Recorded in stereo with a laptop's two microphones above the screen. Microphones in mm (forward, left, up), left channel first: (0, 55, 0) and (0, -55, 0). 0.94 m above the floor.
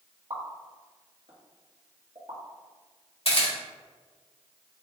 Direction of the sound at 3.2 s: 60° left (ahead or behind).